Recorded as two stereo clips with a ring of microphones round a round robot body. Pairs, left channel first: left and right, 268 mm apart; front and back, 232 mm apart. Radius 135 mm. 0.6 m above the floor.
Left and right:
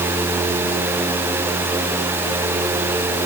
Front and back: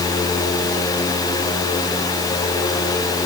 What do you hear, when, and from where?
Only background noise.